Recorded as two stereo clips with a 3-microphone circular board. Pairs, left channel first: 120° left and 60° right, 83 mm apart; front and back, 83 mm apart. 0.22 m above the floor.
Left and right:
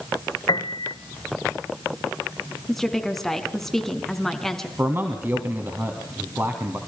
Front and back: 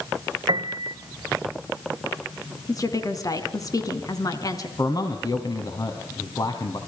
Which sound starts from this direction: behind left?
A piano, at 0.5 s.